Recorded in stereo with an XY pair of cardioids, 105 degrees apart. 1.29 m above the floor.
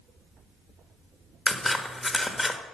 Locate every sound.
1.5 s scissors: 20° left, 1.4 m